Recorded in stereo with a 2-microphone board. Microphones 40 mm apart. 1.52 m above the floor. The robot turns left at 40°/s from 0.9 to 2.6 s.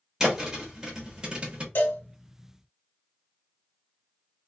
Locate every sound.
0.2 s a thud: 10° right (ahead or behind), 1.1 m; by 1.6 s 30° right (ahead or behind), 1.1 m
1.8 s a cowbell: 55° left (ahead or behind), 1.2 m; by 2.0 s 45° left (ahead or behind), 1.2 m